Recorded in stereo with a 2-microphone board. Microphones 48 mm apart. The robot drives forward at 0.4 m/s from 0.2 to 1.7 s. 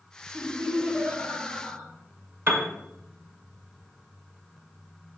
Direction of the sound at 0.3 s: 80° right.